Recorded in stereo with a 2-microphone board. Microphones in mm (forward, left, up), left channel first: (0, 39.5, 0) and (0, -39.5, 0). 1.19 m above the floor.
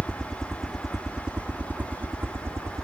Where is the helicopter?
10° left (ahead or behind); by 2.9 s 40° right (ahead or behind).